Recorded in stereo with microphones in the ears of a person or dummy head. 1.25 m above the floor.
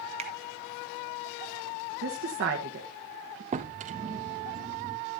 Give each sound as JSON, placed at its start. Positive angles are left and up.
{"t": 0.2, "sound": "a finger snap", "side_deg": -30, "distance_m": 1.3}
{"t": 2.0, "sound": "a woman speaking", "side_deg": -50, "distance_m": 1.0}
{"t": 3.5, "sound": "a drawer", "side_deg": -35, "distance_m": 0.6}